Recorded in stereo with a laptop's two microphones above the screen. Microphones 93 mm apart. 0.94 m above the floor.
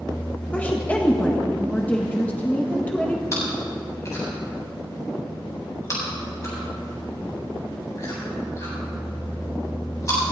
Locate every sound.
0.5 s a woman speaking: 15° left (ahead or behind), 1.2 m
3.3 s chewing: 35° left (ahead or behind), 4.5 m